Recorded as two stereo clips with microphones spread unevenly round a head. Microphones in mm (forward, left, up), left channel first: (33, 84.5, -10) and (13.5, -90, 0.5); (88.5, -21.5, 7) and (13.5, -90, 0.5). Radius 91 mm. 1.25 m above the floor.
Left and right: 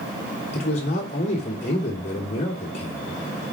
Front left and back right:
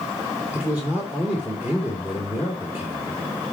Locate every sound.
0.5 s a man speaking: 140° left, 3 m